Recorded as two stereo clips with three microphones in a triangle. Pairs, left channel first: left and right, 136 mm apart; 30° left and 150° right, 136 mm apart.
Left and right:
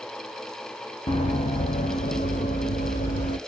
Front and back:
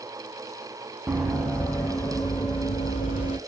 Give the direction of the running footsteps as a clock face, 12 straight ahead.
8 o'clock.